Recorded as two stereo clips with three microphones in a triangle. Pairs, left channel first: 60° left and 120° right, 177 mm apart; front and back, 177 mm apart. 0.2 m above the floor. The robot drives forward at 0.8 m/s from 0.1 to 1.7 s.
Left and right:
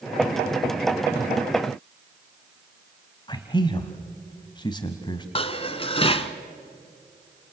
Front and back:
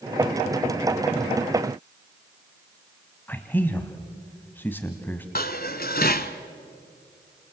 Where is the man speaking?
65° left, 1.5 m.